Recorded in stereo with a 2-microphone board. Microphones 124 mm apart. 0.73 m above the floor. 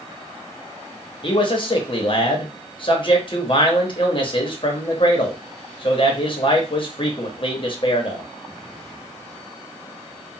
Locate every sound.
1.2 s a man speaking: 40° left (ahead or behind), 0.8 m